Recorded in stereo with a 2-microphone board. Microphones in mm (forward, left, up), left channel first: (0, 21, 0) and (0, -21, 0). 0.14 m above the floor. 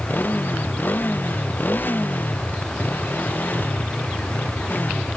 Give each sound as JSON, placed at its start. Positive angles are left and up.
{"t": 0.0, "sound": "a motorcycle", "side_deg": 50}